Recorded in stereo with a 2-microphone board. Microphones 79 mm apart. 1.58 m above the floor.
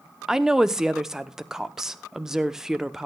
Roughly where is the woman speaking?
Centre.